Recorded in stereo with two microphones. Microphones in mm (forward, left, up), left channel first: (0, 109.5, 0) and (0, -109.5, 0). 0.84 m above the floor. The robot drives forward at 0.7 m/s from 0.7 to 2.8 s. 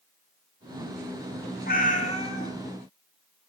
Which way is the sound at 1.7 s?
45° left (ahead or behind).